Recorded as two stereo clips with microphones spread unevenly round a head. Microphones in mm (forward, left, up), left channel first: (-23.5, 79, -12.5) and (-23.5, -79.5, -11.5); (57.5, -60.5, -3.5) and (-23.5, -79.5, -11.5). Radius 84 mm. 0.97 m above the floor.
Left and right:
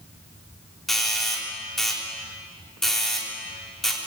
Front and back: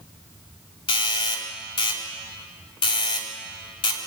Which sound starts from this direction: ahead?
A doorbell, at 0.9 s.